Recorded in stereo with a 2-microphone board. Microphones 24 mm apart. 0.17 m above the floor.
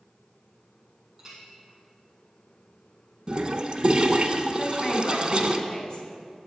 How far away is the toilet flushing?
About 0.6 m.